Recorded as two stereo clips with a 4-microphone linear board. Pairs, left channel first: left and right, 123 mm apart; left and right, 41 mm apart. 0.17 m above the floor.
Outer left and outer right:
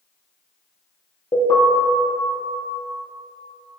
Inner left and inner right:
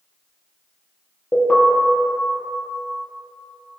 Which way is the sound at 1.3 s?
35° left (ahead or behind).